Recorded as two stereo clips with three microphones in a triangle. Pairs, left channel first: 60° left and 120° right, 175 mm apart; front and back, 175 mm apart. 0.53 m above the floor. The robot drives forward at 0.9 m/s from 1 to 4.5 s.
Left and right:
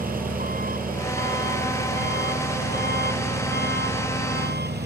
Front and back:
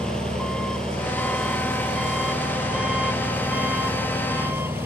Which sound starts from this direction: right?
An engine running, at 0.0 s.